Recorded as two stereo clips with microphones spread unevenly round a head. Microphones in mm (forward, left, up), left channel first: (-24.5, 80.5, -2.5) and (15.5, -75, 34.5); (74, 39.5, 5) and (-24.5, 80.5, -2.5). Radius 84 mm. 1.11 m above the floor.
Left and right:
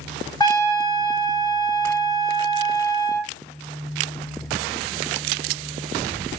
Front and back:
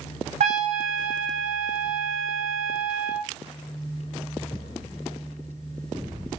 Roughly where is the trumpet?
Behind.